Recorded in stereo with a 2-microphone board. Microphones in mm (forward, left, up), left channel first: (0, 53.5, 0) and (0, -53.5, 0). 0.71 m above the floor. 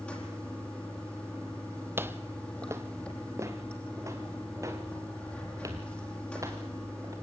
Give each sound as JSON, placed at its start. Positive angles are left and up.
{"t": 0.0, "sound": "running water", "side_deg": 10, "distance_m": 5.5}
{"t": 2.0, "sound": "footsteps", "side_deg": -20, "distance_m": 1.0}